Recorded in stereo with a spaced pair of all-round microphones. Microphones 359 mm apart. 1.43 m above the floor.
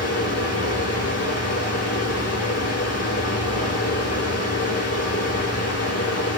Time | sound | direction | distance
0.0 | a fan | 40° left (ahead or behind) | 1.9 m